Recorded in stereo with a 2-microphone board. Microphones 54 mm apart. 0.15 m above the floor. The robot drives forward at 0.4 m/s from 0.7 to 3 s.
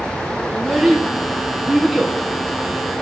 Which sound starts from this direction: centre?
A child speaking, at 0.5 s.